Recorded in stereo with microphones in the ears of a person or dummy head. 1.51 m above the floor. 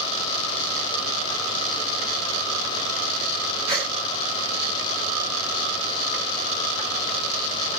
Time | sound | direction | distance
3.7 | a gasp | 30° right (ahead or behind) | 4 m